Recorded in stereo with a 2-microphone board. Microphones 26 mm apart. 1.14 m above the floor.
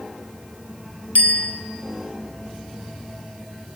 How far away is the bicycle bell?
About 5 m.